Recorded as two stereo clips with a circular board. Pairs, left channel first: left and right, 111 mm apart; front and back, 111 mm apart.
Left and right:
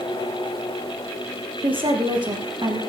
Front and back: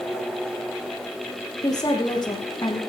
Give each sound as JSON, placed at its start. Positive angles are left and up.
{"t": 1.6, "sound": "a woman speaking", "azimuth_deg": -55, "distance_m": 5.0}